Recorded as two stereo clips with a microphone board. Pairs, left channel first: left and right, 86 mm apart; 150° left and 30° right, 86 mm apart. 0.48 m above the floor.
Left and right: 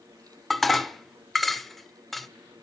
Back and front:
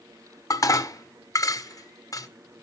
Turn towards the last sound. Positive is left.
turn(degrees=180)